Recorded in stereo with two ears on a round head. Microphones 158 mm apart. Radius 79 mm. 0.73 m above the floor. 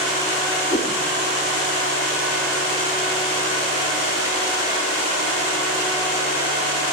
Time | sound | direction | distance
0.7 | a whoosh | 20° left (ahead or behind) | 1.7 m